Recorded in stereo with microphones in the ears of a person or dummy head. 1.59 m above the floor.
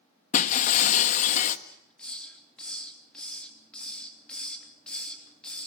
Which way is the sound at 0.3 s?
45° left (ahead or behind).